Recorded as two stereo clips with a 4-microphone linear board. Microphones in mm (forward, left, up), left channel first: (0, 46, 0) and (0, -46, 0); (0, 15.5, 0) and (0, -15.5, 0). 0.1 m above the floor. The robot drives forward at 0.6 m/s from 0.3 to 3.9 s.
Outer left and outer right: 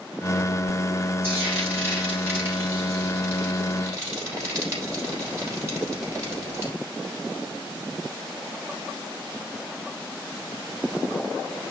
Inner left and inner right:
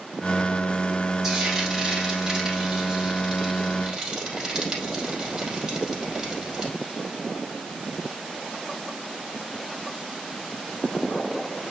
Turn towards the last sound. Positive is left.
turn(degrees=-30)  # may be behind; listen again after turning